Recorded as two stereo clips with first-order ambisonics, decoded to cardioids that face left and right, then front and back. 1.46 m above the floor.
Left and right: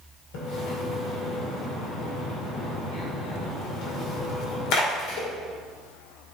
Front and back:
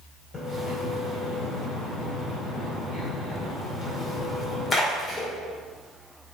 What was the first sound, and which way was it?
A splash, 70° left.